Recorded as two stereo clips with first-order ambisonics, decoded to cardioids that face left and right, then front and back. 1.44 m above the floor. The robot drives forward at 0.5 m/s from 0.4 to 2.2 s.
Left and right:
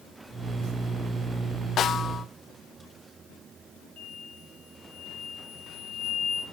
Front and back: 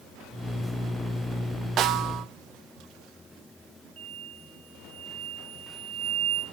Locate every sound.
1.8 s a snare drum: 135° left, 0.6 m; by 2.2 s 150° left, 0.8 m
4.0 s an explosion: 150° left, 7.5 m